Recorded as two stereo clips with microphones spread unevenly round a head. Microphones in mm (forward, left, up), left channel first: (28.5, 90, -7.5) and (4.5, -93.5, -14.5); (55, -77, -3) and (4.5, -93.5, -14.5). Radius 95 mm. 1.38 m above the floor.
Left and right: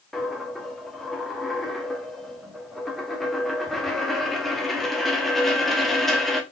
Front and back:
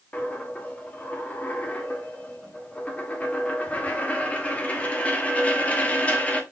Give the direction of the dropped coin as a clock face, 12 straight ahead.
12 o'clock.